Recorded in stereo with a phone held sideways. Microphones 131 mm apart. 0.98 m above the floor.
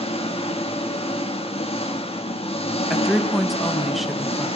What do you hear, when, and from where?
0.0 s an engine running: 50° left (ahead or behind), 1.3 m
2.9 s a woman speaking: centre (ahead or behind), 0.6 m